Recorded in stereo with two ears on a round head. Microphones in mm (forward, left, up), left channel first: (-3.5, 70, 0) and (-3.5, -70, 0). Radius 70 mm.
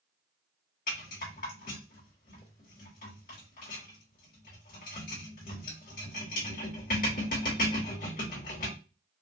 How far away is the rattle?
About 2 m.